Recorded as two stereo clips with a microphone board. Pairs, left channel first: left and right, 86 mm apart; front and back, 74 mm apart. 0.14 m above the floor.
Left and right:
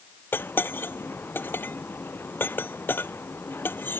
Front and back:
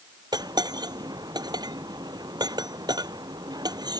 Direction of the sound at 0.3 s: 155° left.